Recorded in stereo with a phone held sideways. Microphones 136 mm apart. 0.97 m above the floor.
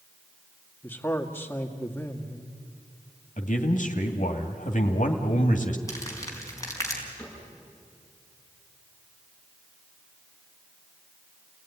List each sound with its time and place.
0.8 s a man speaking: 15° left (ahead or behind), 2 m
3.4 s a man speaking: 70° left (ahead or behind), 2.5 m
5.9 s crumpling: 25° left (ahead or behind), 4.5 m
7.2 s a cupboard door: 10° left (ahead or behind), 8.5 m